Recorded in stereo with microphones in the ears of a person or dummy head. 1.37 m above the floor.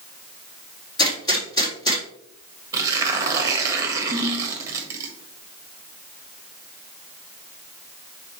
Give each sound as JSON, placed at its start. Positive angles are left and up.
{"t": 1.0, "sound": "a gunshot", "side_deg": 20, "distance_m": 3.5}
{"t": 2.7, "sound": "tearing paper", "side_deg": -20, "distance_m": 1.5}
{"t": 4.1, "sound": "a ringtone", "side_deg": 20, "distance_m": 3.5}